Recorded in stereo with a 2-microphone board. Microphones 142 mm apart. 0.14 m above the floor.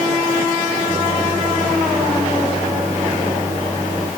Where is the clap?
No clap in this recording.